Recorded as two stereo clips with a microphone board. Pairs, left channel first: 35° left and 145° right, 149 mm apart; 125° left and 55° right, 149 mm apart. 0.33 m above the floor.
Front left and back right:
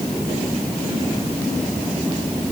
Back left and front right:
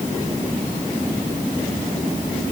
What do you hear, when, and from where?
Only background noise.